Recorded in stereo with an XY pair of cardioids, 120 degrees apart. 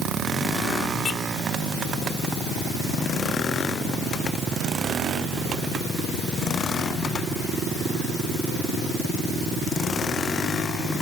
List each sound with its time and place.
Only background noise.